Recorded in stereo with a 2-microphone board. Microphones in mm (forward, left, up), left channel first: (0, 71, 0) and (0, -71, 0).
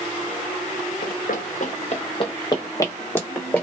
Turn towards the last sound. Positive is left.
turn(degrees=10)  # may be behind; listen again after turning